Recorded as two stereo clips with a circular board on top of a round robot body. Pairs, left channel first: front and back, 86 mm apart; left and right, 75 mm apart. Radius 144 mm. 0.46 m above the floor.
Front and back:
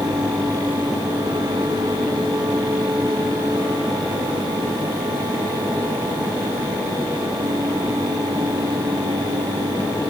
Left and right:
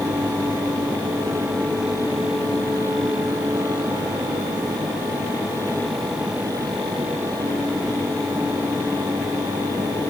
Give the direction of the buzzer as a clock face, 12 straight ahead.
No buzzer in this recording.